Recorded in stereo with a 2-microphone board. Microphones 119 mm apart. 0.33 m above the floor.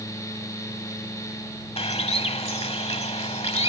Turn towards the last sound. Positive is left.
turn(degrees=60)  # may be behind; listen again after turning